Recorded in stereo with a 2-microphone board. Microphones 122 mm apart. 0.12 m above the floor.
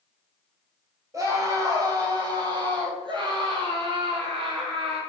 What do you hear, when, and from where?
1.1 s a scream: 25° right (ahead or behind), 3.5 m; by 5.0 s 50° right (ahead or behind), 4.5 m